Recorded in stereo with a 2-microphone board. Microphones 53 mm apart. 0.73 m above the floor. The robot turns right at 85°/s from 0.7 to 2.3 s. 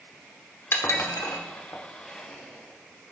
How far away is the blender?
About 2.5 m.